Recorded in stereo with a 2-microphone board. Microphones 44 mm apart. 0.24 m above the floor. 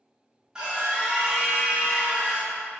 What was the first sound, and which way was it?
A scream, 20° right (ahead or behind).